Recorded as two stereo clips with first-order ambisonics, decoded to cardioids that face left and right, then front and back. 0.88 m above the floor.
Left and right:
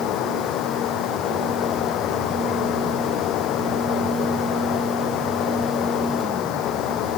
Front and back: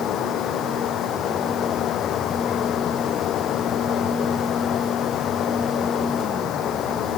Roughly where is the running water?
Ahead left.